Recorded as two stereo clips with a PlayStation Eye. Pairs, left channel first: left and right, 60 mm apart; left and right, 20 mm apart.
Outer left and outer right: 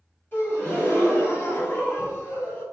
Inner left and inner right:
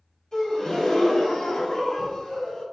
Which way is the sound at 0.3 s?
40° left (ahead or behind).